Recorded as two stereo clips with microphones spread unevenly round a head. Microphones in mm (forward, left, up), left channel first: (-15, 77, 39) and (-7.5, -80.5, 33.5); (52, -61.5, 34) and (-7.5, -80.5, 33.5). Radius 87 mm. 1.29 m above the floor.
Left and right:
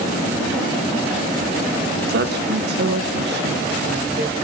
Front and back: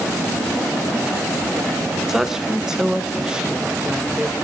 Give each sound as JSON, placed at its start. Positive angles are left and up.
{"t": 2.1, "sound": "a woman speaking", "azimuth_deg": -80, "distance_m": 1.3}